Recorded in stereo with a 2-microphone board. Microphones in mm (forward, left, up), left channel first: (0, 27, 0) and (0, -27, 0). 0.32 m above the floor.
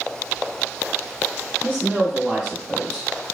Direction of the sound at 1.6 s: 10° right (ahead or behind).